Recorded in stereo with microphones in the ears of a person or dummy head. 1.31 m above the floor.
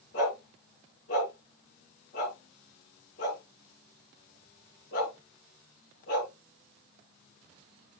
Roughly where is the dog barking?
Left.